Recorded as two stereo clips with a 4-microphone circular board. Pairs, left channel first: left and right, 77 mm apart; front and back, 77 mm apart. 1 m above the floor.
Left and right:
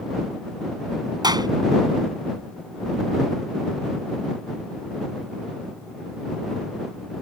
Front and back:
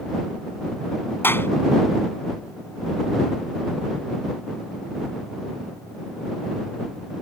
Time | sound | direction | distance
1.2 | a clap | 65° right | ?